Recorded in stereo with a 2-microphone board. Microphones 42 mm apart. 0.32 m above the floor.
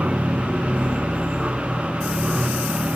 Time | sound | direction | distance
0.0 | an aircraft | 30° right (ahead or behind) | ?